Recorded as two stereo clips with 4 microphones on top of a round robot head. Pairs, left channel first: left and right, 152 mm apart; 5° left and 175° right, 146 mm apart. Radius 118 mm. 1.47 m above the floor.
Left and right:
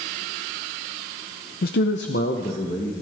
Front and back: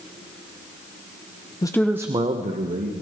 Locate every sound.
1.6 s a man speaking: 65° left, 0.8 m; by 3.0 s 155° left, 2 m